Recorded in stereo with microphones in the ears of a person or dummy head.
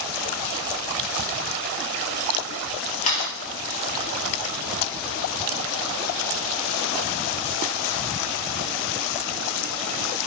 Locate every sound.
3.0 s a camera shutter: 50° left (ahead or behind), 5 m